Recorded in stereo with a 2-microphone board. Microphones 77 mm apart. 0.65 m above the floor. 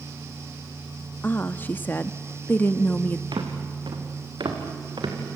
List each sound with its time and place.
1.2 s a woman speaking: 25° left (ahead or behind), 0.6 m
3.3 s footsteps: 70° right (ahead or behind), 3.5 m